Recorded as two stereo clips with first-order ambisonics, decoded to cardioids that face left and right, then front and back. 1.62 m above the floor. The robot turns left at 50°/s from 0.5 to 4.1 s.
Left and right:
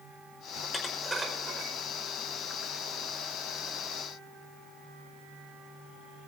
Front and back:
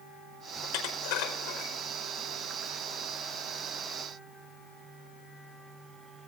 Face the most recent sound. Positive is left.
turn(degrees=-155)